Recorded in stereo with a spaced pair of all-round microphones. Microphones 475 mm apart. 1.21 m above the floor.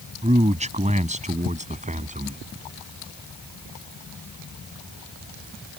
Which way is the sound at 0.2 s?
15° right (ahead or behind).